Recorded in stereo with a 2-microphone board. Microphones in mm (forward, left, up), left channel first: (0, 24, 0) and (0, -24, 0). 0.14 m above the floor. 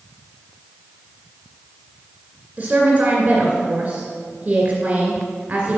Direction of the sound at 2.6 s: 25° right (ahead or behind).